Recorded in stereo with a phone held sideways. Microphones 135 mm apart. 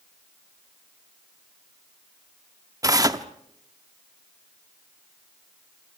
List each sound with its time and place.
2.8 s tearing paper: 25° right (ahead or behind), 0.8 m